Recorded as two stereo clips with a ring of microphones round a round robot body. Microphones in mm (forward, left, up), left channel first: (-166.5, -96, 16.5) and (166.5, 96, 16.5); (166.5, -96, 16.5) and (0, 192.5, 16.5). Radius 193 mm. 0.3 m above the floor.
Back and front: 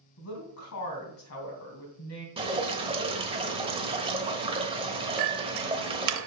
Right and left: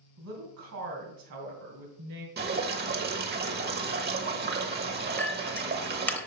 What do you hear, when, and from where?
0.2 s a woman speaking: 165° left, 3 m
2.4 s dripping: 95° left, 1.2 m
5.2 s a clink: 20° left, 0.8 m